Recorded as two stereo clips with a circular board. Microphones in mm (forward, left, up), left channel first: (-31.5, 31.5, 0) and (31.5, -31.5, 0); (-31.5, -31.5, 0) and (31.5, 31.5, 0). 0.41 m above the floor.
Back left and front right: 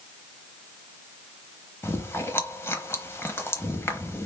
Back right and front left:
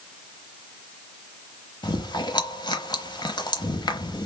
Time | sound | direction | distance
1.8 | chewing | 165° right | 0.8 m